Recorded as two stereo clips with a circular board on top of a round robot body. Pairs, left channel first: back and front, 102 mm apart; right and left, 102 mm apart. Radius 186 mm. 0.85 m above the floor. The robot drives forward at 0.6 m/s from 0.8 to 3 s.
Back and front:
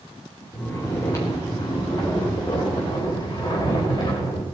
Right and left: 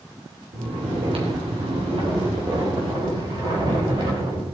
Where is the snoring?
115° left, 3 m; by 4.4 s 135° left, 4 m.